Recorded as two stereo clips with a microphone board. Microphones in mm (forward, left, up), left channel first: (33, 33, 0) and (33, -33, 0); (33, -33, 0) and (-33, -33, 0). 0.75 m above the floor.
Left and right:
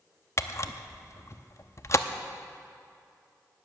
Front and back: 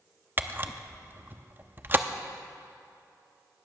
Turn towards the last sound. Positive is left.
turn(degrees=125)